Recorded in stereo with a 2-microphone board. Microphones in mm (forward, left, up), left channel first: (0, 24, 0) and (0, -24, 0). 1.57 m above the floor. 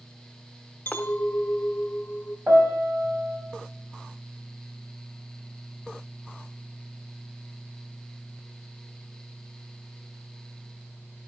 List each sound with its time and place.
0.9 s a clink: 40° left (ahead or behind), 1.0 m
2.5 s a piano: 40° right (ahead or behind), 4.5 m